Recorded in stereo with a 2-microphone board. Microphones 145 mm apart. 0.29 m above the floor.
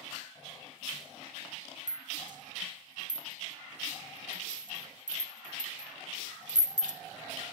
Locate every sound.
1.9 s a rattle: 70° right (ahead or behind), 1.0 m